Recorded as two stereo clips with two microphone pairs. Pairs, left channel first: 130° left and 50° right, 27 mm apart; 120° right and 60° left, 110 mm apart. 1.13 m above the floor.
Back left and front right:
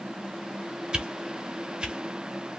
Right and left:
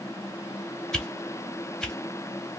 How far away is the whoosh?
About 0.7 m.